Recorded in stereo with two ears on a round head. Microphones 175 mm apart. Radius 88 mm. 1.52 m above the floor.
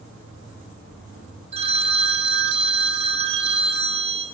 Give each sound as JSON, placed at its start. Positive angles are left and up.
{"t": 1.5, "sound": "a phone ringing", "side_deg": -30, "distance_m": 1.0}